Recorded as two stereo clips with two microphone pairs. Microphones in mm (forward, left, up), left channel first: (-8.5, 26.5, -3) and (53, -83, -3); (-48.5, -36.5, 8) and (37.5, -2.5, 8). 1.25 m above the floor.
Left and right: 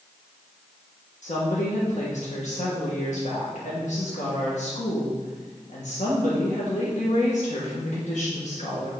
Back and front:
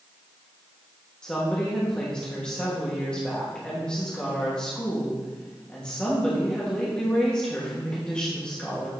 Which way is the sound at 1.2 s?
125° left.